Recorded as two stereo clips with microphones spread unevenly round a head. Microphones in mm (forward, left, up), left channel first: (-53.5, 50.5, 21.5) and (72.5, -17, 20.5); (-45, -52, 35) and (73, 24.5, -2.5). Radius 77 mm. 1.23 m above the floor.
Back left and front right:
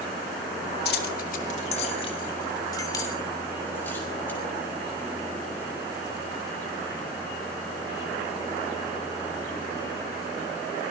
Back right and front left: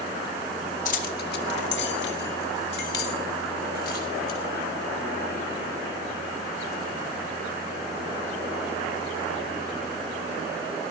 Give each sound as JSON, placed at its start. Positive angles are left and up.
{"t": 0.8, "sound": "keys jangling", "azimuth_deg": 175, "distance_m": 2.0}